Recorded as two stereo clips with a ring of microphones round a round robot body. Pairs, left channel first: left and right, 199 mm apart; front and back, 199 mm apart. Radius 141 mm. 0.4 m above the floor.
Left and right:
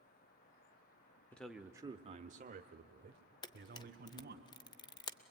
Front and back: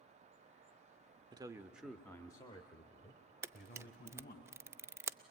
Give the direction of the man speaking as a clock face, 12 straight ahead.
7 o'clock.